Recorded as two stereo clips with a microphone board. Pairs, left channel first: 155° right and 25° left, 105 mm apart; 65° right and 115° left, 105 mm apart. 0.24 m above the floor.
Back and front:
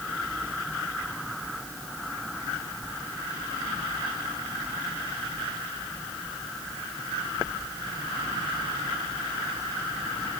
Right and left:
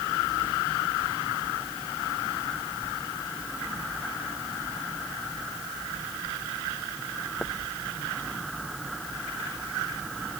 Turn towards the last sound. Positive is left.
No sound to turn to.